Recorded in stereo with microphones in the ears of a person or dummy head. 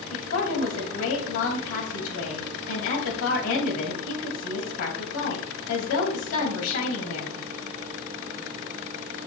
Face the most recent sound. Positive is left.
turn(degrees=75)  # may be behind; listen again after turning